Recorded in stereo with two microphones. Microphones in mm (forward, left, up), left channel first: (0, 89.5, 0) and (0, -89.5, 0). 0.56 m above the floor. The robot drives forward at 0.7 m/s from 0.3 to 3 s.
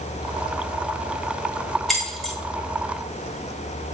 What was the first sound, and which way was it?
Keys jangling, centre (ahead or behind).